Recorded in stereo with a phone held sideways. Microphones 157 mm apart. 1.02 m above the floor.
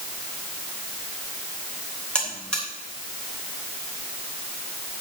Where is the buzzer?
5° left (ahead or behind), 3 m.